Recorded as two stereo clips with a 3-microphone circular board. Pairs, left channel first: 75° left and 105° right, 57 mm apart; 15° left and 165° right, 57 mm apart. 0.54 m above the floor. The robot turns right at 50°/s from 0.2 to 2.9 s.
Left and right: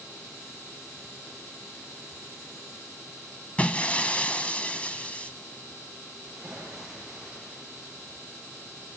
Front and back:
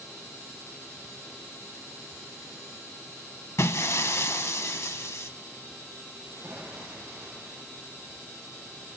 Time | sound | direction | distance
3.6 | breaking glass | 10° left | 0.6 m
6.2 | a splash | 170° left | 9 m